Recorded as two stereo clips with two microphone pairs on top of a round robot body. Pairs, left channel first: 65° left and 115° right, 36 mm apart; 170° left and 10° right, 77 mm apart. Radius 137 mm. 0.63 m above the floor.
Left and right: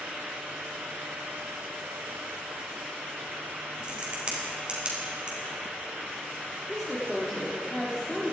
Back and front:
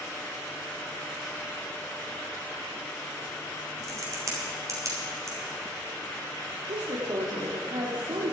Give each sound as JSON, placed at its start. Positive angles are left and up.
{"t": 3.8, "sound": "a crack", "azimuth_deg": -60, "distance_m": 3.0}
{"t": 6.7, "sound": "a woman speaking", "azimuth_deg": -15, "distance_m": 2.0}